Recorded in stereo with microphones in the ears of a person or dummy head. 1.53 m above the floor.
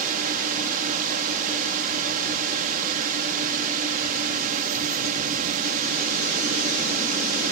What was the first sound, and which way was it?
A drone, 40° right (ahead or behind).